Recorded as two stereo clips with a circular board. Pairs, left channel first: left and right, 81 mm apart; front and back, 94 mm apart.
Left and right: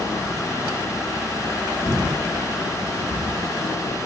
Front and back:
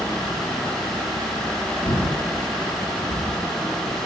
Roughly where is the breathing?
Ahead.